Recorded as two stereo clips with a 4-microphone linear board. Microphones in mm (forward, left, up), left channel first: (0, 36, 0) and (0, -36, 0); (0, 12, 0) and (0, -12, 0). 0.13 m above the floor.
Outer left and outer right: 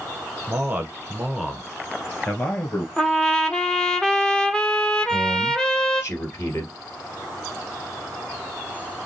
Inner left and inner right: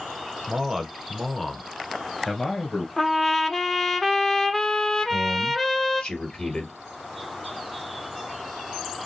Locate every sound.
0.5 s a man speaking: 30° right (ahead or behind), 1.3 m; by 2.9 s 20° left (ahead or behind), 1.9 m
3.0 s a trumpet: 10° left (ahead or behind), 0.6 m
5.0 s a man speaking: 45° left (ahead or behind), 2.5 m